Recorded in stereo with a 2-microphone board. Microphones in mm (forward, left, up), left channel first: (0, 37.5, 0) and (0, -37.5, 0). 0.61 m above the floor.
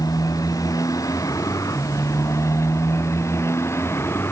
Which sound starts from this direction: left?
A motorcycle, at 0.0 s.